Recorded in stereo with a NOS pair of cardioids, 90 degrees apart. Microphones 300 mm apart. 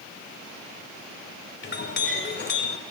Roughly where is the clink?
Ahead left.